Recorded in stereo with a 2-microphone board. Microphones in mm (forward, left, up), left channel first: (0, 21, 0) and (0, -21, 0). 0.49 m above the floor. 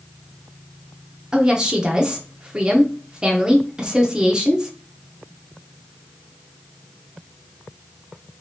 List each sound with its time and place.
1.3 s a woman speaking: 25° right (ahead or behind), 0.7 m